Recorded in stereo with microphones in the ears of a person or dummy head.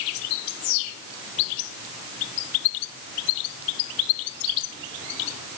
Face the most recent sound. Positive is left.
No sound to turn to.